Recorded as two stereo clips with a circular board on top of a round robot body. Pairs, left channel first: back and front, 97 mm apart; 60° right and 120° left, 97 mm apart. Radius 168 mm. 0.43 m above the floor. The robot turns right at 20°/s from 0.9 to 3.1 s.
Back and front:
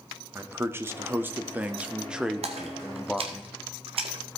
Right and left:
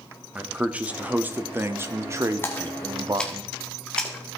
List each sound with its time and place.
0.3 s a man speaking: 50° left, 1.1 m; by 3.4 s 95° left, 1.1 m
2.4 s a splash: 10° left, 0.6 m; by 4.4 s 20° left, 0.6 m